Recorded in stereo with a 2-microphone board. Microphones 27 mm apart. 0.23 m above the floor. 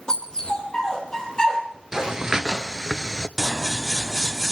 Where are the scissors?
20° right (ahead or behind), 0.6 m.